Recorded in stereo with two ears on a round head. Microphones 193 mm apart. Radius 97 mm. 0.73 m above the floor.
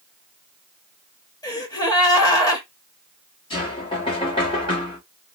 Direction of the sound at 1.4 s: 15° left (ahead or behind).